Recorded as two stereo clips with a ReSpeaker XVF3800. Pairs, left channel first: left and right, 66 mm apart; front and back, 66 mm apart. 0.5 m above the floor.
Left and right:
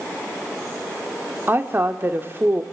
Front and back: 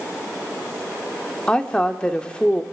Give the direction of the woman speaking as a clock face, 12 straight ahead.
2 o'clock.